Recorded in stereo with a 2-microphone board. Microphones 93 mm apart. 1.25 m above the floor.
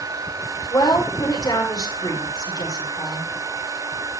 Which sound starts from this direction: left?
A woman speaking, at 0.7 s.